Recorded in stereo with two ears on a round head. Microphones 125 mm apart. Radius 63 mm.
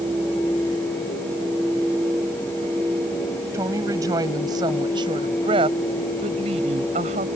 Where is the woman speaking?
20° right (ahead or behind); by 7.3 s 55° right (ahead or behind).